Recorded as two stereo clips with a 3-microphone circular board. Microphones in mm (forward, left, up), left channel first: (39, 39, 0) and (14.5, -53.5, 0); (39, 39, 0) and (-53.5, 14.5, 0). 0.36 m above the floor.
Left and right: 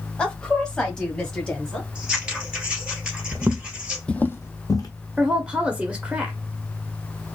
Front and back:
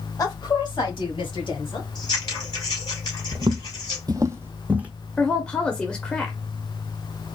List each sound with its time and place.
0.2 s a woman speaking: straight ahead, 1.1 m; by 1.9 s 10° right, 3 m
1.9 s scissors: 20° right, 2.5 m
3.3 s footsteps: 145° right, 0.6 m; by 4.9 s 120° left, 1.0 m
5.2 s a woman speaking: 45° right, 0.9 m